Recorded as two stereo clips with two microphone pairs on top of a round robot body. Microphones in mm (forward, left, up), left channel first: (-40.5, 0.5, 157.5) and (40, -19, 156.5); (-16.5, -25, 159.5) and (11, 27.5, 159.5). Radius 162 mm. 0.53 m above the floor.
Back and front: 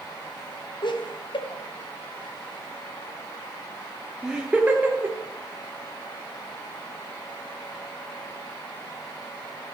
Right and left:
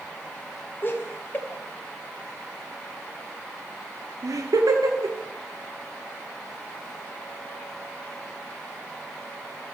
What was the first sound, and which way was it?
Laughter, 170° right.